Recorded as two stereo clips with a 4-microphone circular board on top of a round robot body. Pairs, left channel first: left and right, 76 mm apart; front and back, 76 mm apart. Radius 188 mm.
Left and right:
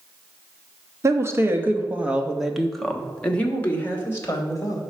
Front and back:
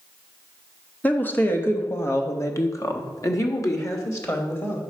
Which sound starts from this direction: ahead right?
A woman speaking, at 1.0 s.